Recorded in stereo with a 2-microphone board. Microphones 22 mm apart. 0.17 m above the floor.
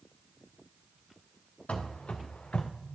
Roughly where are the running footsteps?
Left.